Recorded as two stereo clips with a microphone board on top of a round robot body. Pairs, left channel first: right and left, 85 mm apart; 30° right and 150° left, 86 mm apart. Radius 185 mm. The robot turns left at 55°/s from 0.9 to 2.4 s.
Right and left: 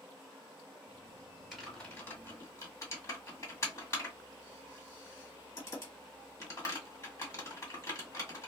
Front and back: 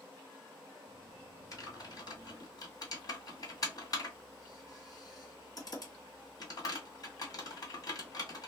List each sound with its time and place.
1.5 s typing on a keyboard: 5° left, 1.9 m; by 8.5 s 45° right, 1.9 m